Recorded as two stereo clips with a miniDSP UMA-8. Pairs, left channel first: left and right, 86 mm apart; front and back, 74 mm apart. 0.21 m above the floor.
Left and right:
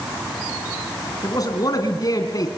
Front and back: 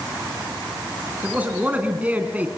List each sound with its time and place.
1.2 s a man speaking: 115° left, 2.5 m